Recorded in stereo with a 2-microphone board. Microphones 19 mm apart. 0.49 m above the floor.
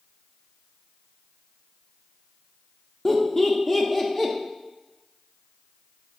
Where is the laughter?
20° left (ahead or behind), 0.7 m.